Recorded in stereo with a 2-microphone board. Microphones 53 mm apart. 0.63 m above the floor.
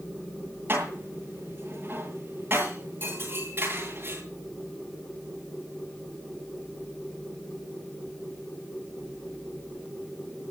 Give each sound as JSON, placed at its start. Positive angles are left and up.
{"t": 0.7, "sound": "dishes clattering", "side_deg": -40, "distance_m": 8.5}